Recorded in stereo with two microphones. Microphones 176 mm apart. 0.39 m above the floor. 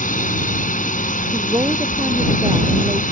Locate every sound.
0.0 s a drone: 50° left (ahead or behind)
1.3 s a woman speaking: 20° right (ahead or behind)